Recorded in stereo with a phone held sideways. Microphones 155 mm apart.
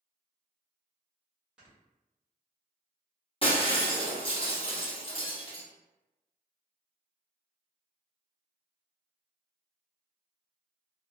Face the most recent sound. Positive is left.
turn(degrees=35)  # may be behind; listen again after turning